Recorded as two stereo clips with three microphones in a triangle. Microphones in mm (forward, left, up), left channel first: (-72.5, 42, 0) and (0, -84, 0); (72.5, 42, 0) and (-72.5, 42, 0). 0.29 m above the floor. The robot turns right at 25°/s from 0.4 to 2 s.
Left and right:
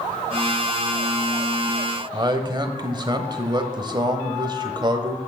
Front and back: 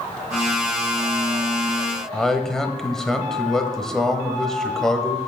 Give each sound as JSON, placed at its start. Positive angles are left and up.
{"t": 2.1, "sound": "a man speaking", "azimuth_deg": -85, "distance_m": 1.1}